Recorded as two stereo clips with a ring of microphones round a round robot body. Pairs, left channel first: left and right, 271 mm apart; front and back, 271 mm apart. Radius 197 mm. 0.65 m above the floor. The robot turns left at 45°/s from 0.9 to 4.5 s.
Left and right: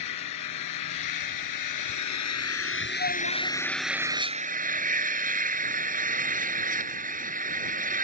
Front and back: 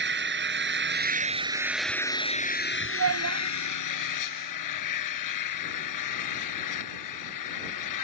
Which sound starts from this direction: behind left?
An engine running, at 0.0 s.